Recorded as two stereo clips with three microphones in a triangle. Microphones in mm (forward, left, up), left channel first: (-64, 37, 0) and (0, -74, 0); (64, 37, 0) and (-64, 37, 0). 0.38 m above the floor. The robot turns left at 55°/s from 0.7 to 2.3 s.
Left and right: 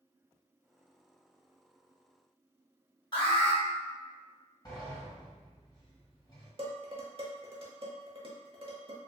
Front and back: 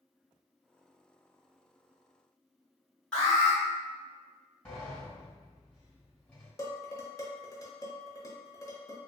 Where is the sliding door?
75° left, 2.0 m.